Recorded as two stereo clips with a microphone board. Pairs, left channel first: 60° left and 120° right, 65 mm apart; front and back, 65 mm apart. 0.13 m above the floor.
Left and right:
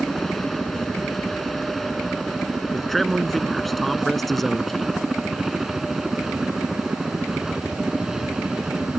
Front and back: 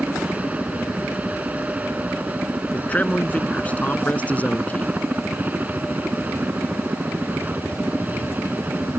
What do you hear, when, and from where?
0.0 s a helicopter: 140° left; by 9.0 s 170° left
2.7 s a man speaking: 25° right